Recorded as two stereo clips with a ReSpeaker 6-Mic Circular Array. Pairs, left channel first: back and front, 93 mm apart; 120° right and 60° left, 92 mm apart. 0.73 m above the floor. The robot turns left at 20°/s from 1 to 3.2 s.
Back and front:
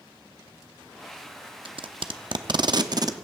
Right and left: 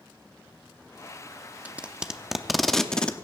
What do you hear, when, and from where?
1.6 s tape being pulled: 15° right, 0.7 m; by 3.1 s 40° right, 0.7 m